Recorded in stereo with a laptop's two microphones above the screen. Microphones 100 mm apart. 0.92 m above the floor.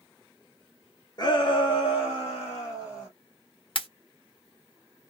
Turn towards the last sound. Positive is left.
turn(degrees=55)  # may be behind; listen again after turning